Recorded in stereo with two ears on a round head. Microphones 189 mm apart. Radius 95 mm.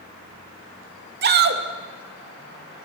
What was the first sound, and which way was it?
A shout, 50° right (ahead or behind).